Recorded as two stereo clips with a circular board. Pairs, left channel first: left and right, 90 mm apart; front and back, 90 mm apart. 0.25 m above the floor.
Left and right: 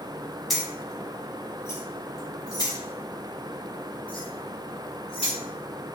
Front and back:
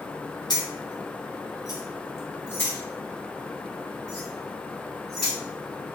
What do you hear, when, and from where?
0.5 s keys jangling: straight ahead, 1.1 m; by 5.3 s 85° left, 2.5 m